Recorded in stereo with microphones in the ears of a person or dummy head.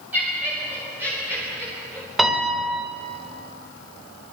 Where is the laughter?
10° right (ahead or behind), 6 m.